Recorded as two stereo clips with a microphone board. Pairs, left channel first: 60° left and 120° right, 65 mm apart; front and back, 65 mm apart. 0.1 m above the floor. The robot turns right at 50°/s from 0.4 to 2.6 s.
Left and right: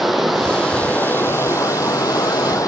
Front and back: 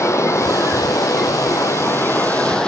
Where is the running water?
30° right, 1.6 m; by 2.7 s 80° left, 1.6 m.